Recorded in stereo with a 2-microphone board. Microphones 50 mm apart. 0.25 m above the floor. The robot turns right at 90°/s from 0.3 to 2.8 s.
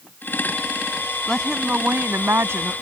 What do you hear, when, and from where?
1.3 s a woman speaking: 160° left; by 2.7 s 65° right